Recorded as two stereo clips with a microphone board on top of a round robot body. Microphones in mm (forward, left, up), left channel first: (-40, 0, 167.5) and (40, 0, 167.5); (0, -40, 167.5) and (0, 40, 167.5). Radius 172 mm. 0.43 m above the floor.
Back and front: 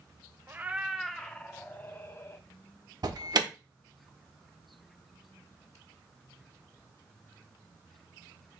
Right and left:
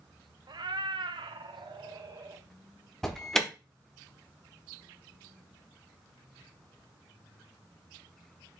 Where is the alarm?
5° right, 1.6 m.